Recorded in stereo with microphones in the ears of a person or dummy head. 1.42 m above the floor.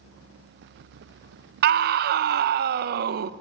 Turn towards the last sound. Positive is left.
turn(degrees=-60)  # may be behind; listen again after turning